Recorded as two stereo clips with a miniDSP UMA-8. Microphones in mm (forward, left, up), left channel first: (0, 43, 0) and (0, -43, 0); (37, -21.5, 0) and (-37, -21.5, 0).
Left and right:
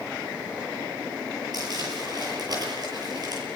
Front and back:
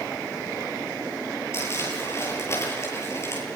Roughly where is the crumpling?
Ahead right.